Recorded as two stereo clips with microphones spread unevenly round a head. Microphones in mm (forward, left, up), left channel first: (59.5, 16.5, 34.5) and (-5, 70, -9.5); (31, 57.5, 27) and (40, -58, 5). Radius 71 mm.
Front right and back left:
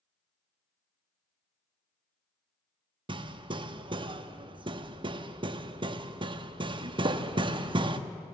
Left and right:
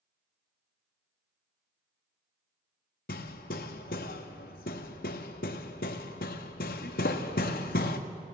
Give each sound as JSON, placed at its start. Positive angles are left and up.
{"t": 3.1, "sound": "hammering", "azimuth_deg": 110, "distance_m": 1.0}